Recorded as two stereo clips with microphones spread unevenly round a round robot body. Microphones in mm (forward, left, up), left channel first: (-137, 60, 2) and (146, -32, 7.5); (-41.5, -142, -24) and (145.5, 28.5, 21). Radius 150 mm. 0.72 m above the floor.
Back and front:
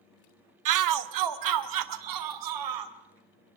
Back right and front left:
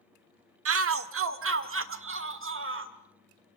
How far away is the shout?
About 1.2 m.